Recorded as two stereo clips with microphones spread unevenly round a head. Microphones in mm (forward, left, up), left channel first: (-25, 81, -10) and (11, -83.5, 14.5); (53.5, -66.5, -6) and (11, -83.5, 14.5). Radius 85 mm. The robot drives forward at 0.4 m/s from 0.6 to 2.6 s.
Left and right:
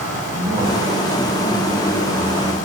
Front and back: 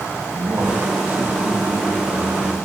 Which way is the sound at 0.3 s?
135° right.